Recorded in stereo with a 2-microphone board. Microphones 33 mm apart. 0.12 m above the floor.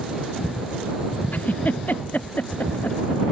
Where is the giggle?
55° left (ahead or behind).